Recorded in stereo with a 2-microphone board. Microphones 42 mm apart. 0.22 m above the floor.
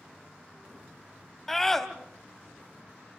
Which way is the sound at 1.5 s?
10° left (ahead or behind).